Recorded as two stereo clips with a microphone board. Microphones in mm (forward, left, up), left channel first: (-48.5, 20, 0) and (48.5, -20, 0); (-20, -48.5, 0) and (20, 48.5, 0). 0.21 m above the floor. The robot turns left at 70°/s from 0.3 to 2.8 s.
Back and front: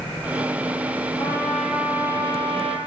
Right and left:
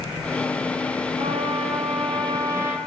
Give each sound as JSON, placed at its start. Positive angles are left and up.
{"t": 1.2, "sound": "a trumpet", "azimuth_deg": 100, "distance_m": 5.5}